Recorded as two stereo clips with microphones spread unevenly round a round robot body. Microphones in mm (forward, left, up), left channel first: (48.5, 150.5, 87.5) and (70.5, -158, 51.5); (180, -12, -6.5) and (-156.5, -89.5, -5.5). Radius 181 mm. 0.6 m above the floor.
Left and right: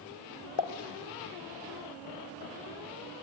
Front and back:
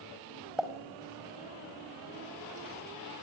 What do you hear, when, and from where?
0.6 s a pop: 105° left, 1.6 m